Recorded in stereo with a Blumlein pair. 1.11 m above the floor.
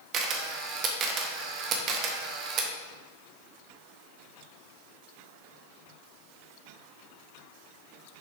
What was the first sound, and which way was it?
A camera shutter, 35° right.